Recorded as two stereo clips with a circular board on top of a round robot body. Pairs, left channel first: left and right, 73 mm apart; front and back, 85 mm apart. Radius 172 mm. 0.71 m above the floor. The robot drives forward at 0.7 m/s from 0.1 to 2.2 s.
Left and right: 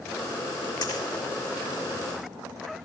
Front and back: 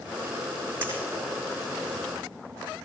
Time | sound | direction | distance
0.8 | a dropped coin | 115° left | 8.5 m